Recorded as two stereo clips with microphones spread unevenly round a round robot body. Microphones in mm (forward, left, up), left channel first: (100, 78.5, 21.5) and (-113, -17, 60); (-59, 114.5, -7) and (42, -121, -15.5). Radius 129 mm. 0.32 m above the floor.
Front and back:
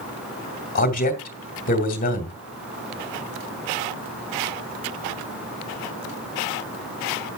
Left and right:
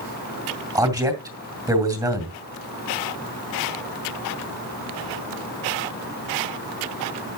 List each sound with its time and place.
0.8 s a man speaking: 5° left, 2 m